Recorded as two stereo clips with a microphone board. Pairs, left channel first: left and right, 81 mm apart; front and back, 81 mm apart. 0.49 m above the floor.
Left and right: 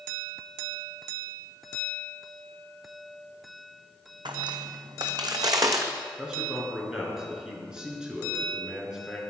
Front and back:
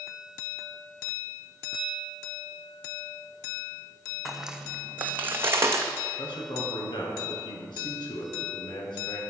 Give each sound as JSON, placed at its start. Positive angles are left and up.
{"t": 4.2, "sound": "footsteps", "azimuth_deg": -95, "distance_m": 1.5}
{"t": 6.2, "sound": "a man speaking", "azimuth_deg": -10, "distance_m": 5.0}